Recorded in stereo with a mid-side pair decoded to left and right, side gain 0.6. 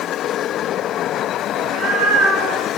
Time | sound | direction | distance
1.6 | a cat meowing | 65° right | 1.4 m